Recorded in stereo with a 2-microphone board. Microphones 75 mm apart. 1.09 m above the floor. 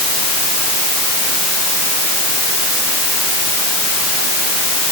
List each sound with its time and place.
Only background noise.